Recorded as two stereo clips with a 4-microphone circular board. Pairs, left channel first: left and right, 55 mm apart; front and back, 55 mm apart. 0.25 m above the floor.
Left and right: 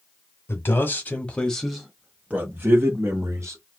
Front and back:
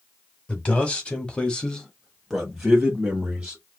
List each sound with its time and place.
0.5 s a man speaking: 60° left, 1.6 m; by 3.6 s 105° right, 2 m